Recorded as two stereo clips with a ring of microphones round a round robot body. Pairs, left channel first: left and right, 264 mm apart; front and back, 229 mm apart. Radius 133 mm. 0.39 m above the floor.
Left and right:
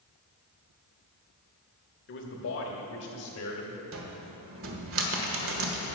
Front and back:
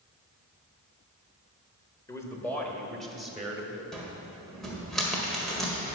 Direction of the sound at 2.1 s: 70° left.